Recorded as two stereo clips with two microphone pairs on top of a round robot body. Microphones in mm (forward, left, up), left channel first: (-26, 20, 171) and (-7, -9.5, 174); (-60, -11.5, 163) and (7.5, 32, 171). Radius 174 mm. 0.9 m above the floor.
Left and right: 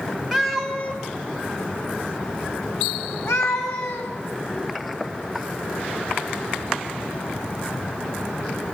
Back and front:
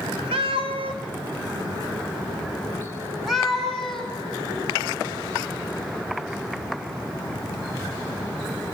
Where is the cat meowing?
30° left, 2 m; by 4.1 s 130° left, 4.5 m.